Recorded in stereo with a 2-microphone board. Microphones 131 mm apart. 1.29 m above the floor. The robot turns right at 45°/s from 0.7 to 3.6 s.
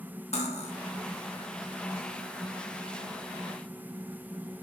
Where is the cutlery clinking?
50° left (ahead or behind), 0.7 m.